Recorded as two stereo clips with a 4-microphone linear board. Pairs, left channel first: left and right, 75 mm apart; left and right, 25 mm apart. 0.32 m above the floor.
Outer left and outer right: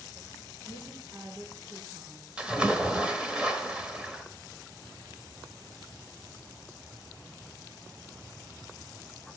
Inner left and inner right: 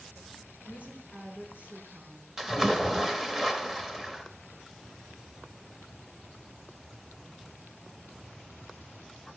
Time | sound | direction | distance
0.7 | a woman speaking | 65° right (ahead or behind) | 4 m
2.4 | a splash | 15° right (ahead or behind) | 1.1 m